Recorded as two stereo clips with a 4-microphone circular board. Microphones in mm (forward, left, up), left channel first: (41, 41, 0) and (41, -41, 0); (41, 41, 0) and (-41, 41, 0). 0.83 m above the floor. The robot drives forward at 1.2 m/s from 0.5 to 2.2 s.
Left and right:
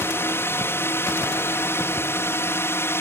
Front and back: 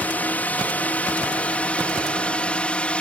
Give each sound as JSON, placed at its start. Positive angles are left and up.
{"t": 0.0, "sound": "a drone", "azimuth_deg": 55}